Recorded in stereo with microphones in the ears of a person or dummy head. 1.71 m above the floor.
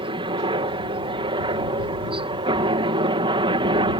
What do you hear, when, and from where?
0.0 s a helicopter: 25° right (ahead or behind)